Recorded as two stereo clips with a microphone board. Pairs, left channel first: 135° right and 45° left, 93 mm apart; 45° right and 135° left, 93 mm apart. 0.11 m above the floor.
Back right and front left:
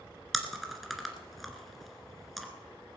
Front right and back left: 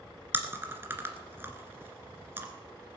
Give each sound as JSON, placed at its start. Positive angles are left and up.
{"t": 0.3, "sound": "chewing", "azimuth_deg": 135, "distance_m": 1.8}